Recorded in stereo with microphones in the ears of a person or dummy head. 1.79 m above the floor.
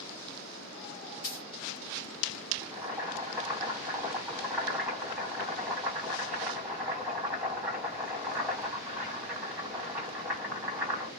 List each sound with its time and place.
1.2 s a dropped coin: 30° left (ahead or behind), 1.3 m
2.6 s boiling: 5° right (ahead or behind), 1.7 m